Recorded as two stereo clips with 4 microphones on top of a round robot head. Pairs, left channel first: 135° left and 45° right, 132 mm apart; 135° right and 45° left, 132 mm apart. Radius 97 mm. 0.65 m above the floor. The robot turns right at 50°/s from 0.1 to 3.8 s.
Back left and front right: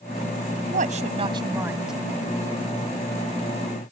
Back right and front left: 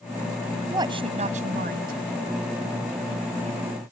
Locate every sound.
0.7 s a woman speaking: 20° right; by 2.0 s 45° left